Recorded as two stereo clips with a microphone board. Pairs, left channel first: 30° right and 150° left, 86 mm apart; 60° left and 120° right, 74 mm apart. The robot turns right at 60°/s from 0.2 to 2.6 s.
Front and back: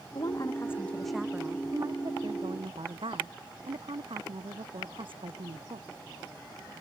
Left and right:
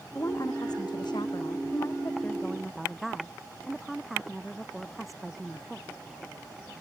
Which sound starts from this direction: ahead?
A woman speaking, at 0.1 s.